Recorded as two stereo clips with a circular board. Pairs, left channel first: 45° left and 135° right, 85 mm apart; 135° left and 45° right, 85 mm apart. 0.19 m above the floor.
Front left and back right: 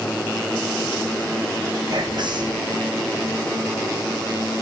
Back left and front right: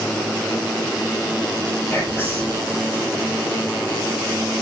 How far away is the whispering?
About 4 m.